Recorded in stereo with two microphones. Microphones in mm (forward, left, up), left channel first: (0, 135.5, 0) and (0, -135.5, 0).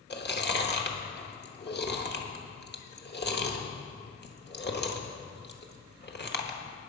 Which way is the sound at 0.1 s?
40° left (ahead or behind).